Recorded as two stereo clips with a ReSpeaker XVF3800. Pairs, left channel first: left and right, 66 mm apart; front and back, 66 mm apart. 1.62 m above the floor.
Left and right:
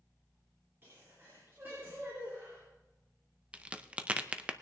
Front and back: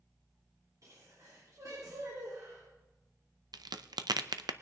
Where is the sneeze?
145° right, 4 m.